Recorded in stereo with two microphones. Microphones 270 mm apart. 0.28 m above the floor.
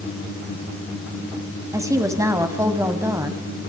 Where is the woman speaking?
10° right (ahead or behind), 2 m.